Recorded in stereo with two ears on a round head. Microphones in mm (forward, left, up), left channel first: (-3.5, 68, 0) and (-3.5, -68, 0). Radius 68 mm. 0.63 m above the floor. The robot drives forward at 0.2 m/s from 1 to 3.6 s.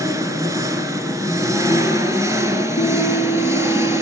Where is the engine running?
20° right (ahead or behind), 2.5 m.